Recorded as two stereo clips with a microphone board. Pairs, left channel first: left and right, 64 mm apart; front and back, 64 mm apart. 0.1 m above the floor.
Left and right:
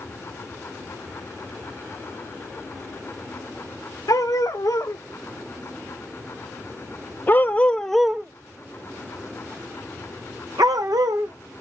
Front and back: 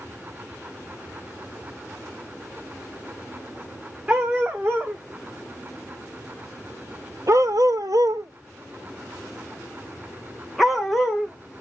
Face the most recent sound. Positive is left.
turn(degrees=-90)